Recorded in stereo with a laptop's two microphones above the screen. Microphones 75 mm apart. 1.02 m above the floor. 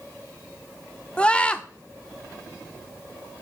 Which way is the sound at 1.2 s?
15° left (ahead or behind).